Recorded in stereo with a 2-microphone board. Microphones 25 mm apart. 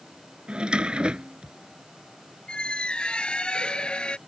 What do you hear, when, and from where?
0.5 s a drawer: 45° right (ahead or behind)
2.5 s a squeak: 45° left (ahead or behind)